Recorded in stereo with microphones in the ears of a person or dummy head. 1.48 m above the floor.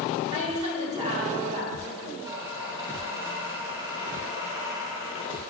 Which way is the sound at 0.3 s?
35° right (ahead or behind).